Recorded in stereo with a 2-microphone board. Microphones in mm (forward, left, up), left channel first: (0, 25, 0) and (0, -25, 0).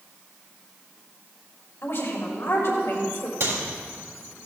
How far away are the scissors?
No scissors in this recording.